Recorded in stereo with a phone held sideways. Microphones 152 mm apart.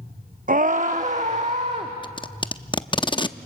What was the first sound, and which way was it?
A scream, 60° right (ahead or behind).